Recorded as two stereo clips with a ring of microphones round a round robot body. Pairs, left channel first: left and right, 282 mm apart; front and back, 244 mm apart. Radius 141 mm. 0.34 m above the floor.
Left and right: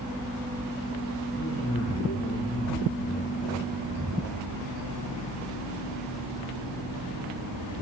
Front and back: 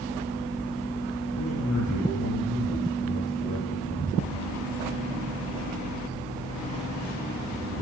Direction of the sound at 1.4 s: 30° left.